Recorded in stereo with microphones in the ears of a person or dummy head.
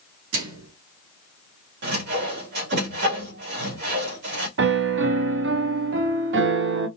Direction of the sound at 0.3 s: 75° right (ahead or behind).